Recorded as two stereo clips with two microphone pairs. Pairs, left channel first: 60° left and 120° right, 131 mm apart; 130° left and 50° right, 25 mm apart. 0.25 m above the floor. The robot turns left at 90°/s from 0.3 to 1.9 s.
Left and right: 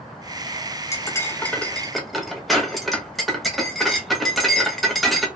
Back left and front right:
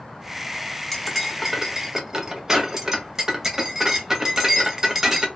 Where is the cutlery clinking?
55° left, 0.6 m; by 5.3 s 35° right, 0.6 m.